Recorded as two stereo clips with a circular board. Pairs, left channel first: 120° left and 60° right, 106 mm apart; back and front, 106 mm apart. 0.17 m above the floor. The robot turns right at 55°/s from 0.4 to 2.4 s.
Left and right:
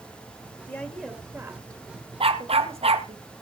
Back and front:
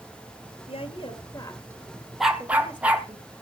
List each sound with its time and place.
0.7 s a woman speaking: 170° right, 3 m; by 3.2 s 75° right, 3 m
2.2 s a dog barking: 90° right, 1.2 m; by 3.1 s 80° right, 1.2 m